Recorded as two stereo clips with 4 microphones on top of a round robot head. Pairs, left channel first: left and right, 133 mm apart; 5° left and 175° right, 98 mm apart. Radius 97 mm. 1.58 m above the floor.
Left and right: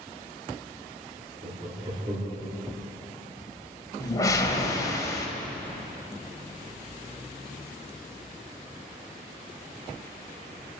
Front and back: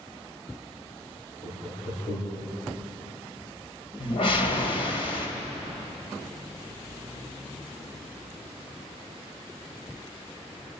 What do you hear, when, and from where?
1.4 s laughter: 45° right, 3.5 m; by 2.5 s 35° right, 4.5 m
4.0 s a whoosh: 30° left, 2.5 m